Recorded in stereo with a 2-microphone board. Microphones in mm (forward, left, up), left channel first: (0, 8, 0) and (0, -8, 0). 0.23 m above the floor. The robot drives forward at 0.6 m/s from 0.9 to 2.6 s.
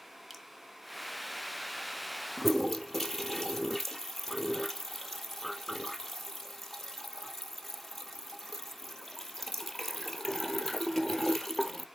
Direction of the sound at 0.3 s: 20° right (ahead or behind).